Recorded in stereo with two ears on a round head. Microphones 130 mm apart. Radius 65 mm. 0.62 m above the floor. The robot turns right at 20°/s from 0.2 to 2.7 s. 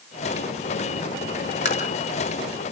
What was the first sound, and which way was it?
Tapping, 50° left (ahead or behind).